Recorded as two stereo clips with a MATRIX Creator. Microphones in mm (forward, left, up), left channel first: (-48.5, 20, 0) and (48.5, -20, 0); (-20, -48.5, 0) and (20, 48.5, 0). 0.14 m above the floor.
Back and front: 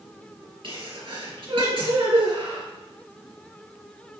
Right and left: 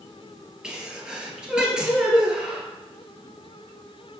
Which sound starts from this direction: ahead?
A sneeze, at 0.6 s.